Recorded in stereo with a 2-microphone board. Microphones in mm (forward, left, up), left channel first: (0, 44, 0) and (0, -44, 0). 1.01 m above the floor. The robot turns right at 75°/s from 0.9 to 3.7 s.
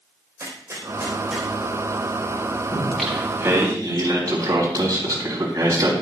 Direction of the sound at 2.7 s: 150° left.